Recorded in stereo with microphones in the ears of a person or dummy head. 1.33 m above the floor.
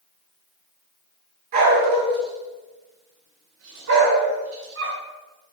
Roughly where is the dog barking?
Right.